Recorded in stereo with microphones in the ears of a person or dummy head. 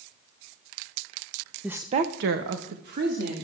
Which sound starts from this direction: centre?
A woman speaking, at 1.6 s.